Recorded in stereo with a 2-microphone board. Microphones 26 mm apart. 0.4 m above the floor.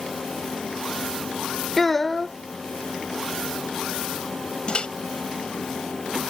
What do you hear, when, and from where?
1.8 s a child speaking: 15° left (ahead or behind)
4.7 s a microwave: 45° left (ahead or behind)